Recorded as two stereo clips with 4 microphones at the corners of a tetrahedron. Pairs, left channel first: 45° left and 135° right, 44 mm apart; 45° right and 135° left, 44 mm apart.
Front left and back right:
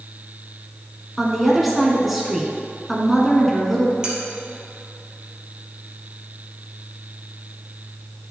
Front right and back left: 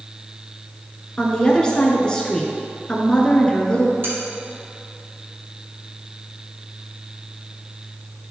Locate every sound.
1.2 s a woman speaking: 55° right, 1.2 m
4.0 s cutlery clinking: 160° left, 2.0 m